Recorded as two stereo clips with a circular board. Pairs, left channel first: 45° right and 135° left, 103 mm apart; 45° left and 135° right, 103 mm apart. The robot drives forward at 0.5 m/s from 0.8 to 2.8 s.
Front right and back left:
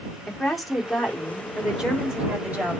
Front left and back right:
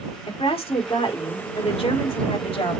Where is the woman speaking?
45° left, 3 m; by 2.8 s 60° left, 2.5 m.